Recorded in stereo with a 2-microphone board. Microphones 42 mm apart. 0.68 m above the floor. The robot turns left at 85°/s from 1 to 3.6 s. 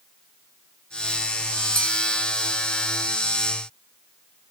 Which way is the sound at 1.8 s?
10° left (ahead or behind).